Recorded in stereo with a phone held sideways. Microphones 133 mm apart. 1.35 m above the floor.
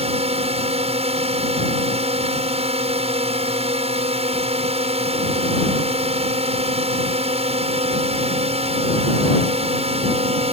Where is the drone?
50° right (ahead or behind).